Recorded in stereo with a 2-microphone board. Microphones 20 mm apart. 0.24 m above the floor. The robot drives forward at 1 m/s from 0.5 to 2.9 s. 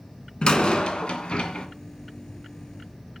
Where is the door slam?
45° left (ahead or behind), 1.8 m; by 1.7 s 55° left (ahead or behind), 1.5 m.